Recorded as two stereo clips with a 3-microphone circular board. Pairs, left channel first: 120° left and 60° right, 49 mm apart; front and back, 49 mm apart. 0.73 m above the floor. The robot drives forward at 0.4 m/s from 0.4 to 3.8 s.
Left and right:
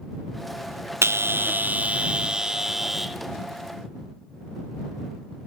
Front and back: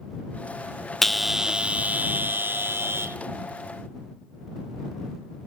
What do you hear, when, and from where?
1.0 s a bell: 85° right, 0.5 m; by 3.2 s 150° right, 1.0 m